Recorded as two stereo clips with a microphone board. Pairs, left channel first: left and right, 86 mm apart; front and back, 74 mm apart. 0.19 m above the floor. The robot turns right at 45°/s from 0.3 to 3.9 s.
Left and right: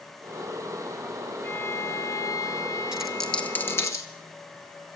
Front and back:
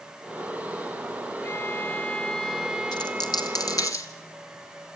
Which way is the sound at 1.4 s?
35° left.